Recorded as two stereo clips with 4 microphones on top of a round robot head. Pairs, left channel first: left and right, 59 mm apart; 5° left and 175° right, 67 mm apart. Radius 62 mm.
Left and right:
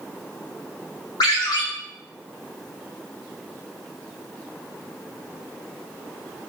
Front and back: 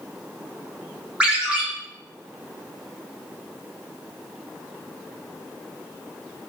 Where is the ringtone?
110° left, 0.7 m.